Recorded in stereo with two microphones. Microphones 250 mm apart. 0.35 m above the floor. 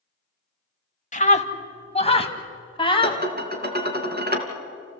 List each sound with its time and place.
1.1 s a scream: 30° left (ahead or behind), 1.5 m; by 3.2 s 20° left (ahead or behind), 2.5 m
3.0 s dishes clattering: 40° right (ahead or behind), 2.5 m